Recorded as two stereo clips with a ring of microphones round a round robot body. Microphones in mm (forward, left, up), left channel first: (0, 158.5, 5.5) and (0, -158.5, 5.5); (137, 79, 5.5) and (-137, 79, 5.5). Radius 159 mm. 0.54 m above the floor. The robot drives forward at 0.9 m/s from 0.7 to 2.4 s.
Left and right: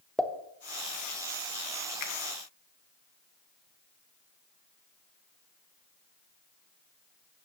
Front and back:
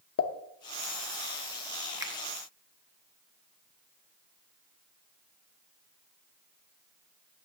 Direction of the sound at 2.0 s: 100° left.